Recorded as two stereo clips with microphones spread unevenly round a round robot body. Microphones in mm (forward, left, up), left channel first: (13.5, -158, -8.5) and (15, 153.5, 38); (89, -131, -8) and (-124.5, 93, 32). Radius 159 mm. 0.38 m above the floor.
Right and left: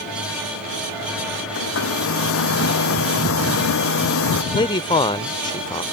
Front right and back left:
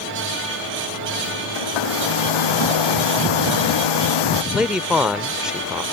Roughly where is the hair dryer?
Ahead right.